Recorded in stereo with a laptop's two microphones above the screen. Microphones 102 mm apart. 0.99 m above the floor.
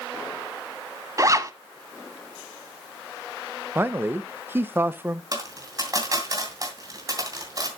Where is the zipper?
35° right (ahead or behind), 1.1 m.